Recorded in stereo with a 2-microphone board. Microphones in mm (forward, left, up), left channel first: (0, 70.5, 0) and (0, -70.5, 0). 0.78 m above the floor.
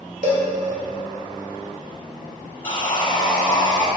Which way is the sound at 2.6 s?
35° left (ahead or behind).